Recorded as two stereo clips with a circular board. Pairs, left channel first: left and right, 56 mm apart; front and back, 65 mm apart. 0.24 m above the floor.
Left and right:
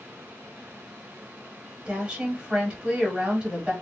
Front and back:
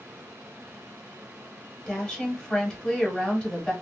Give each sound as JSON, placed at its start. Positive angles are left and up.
{"t": 1.9, "sound": "a woman speaking", "azimuth_deg": -60, "distance_m": 1.1}